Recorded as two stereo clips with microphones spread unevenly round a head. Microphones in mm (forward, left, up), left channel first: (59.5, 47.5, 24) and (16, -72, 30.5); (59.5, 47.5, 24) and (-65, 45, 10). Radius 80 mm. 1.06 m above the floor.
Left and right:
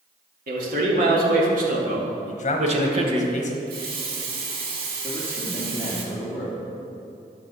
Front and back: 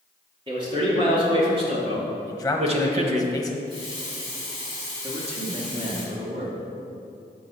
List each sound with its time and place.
0.5 s a man speaking: 120° right, 2.5 m; by 3.3 s 160° right, 1.1 m
2.3 s a man speaking: 80° left, 1.1 m
3.7 s a running tap: 115° right, 1.7 m
5.0 s a man speaking: 145° left, 2 m